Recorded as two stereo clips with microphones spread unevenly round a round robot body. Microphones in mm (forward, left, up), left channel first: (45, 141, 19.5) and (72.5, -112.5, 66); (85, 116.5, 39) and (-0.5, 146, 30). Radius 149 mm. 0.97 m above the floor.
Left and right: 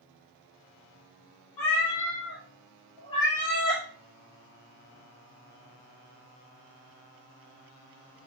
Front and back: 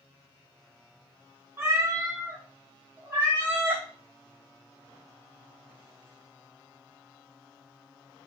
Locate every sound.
1.6 s a cat meowing: 100° left, 1.4 m; by 3.8 s 130° right, 0.9 m